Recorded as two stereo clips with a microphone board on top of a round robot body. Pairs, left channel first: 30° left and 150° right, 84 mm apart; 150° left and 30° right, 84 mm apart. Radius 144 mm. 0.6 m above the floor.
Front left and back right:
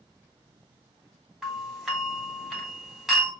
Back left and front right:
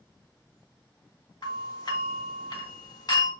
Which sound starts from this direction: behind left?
A doorbell, at 1.4 s.